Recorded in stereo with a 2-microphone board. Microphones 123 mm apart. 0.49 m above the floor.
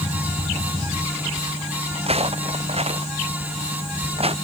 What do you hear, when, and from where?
1.9 s footsteps: 55° right (ahead or behind)